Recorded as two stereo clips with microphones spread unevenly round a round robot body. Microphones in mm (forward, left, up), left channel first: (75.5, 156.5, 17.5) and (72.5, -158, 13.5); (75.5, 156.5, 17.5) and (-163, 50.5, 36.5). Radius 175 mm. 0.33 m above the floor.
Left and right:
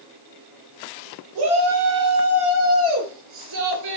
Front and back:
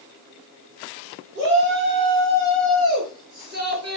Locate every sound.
1.4 s a shout: 95° right, 7.5 m; by 4.0 s 110° right, 7 m